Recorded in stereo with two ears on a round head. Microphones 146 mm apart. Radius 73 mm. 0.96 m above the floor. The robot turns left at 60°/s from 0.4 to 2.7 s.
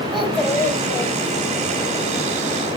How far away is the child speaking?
About 3 m.